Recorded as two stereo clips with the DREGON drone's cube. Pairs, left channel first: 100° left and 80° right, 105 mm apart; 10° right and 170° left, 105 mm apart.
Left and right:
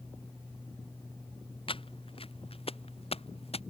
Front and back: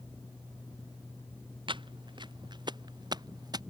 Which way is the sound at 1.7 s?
130° left.